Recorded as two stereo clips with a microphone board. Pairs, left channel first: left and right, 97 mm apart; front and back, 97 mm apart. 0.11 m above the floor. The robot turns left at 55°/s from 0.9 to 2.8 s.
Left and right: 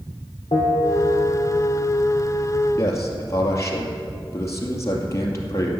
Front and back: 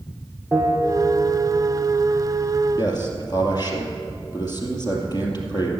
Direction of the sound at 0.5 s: 100° left.